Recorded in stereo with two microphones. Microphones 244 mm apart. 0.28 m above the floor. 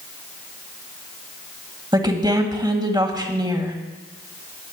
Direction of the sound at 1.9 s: 20° right (ahead or behind).